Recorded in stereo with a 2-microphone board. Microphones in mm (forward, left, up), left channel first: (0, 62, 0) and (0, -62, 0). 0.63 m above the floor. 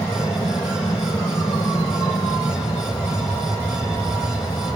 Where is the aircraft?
45° left (ahead or behind).